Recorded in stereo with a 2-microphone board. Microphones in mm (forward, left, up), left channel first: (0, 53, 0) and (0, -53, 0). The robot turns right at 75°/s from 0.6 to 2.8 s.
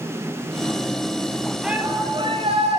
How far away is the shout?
About 7 m.